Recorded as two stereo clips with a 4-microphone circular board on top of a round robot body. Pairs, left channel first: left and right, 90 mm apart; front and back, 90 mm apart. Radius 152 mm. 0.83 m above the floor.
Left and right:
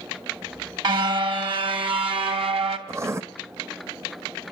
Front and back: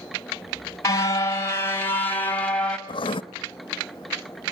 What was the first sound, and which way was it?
A car horn, 55° right.